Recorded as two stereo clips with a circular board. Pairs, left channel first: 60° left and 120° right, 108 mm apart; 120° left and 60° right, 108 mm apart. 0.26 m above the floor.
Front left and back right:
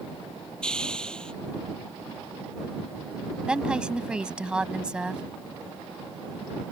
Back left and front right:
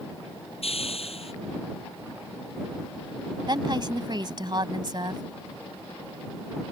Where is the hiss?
145° left.